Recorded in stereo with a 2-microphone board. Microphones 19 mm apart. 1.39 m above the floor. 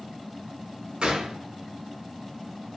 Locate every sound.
1.0 s a gunshot: 50° right (ahead or behind), 0.9 m